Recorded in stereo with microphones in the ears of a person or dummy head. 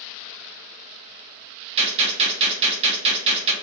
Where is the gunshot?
35° right (ahead or behind), 0.8 m.